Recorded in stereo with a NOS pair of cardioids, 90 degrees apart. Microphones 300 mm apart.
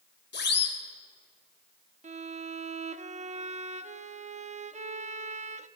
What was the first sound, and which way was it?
A siren, 35° left.